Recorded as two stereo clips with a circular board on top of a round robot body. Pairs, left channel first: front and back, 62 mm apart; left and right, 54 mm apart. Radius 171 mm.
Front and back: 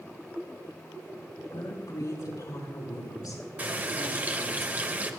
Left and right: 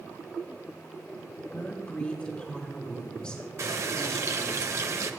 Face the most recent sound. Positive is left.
turn(degrees=-115)